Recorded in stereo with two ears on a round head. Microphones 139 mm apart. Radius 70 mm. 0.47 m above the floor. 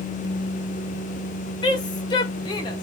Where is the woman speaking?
30° left (ahead or behind), 0.8 m.